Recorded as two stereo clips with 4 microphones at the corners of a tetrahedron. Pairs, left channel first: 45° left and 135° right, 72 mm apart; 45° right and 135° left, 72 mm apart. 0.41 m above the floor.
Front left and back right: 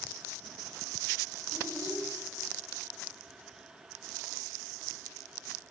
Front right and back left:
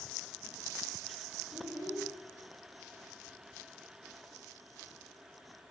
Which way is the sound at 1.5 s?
175° right.